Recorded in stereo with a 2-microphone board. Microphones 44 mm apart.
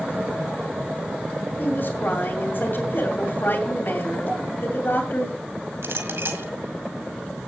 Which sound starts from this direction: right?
A clink, at 5.8 s.